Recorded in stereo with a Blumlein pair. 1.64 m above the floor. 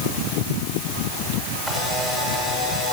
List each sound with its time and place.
1.7 s a camera shutter: straight ahead, 6 m